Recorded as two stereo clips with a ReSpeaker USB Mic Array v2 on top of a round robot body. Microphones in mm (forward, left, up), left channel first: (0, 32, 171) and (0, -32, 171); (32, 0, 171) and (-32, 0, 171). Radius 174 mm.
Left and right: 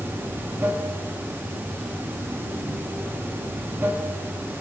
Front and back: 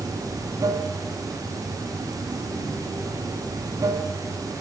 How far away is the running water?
About 1.2 m.